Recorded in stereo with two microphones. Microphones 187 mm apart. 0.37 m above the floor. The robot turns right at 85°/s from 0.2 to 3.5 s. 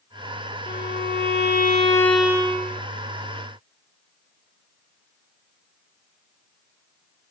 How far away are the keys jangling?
I don't hear keys jangling.